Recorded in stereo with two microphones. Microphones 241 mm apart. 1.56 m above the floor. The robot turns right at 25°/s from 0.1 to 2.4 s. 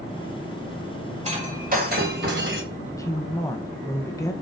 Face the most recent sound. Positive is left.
turn(degrees=15)  # may be behind; listen again after turning